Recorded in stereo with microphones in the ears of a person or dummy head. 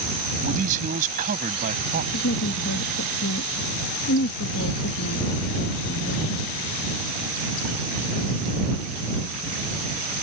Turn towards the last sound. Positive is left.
turn(degrees=75)  # may be behind; listen again after turning